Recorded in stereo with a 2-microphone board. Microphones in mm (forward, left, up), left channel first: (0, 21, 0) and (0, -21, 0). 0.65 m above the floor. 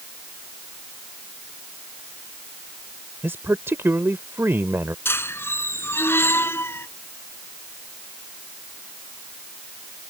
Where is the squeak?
70° left (ahead or behind).